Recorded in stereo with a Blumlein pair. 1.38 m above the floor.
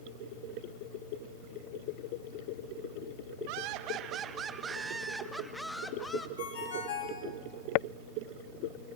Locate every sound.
3.5 s laughter: 45° right, 1.4 m; by 6.3 s 10° left, 1.8 m
6.4 s a ringtone: 60° left, 5.5 m